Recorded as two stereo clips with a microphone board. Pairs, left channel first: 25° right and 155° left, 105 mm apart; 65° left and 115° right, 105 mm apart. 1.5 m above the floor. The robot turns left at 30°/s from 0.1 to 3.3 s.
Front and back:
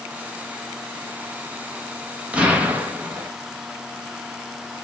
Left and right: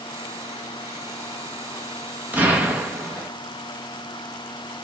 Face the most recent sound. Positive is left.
turn(degrees=180)